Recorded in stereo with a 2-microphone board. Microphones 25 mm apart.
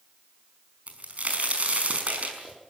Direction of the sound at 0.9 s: 65° right (ahead or behind).